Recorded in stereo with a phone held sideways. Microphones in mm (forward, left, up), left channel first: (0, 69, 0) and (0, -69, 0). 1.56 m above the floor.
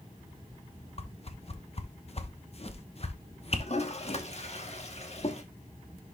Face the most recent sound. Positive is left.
turn(degrees=50)  # may be behind; listen again after turning